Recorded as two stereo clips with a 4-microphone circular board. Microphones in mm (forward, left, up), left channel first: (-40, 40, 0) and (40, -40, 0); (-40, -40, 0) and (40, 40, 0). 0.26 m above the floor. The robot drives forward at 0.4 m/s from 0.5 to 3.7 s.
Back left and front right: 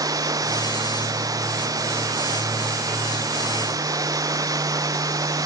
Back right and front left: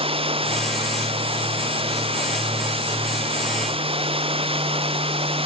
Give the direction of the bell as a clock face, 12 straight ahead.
No bell in this recording.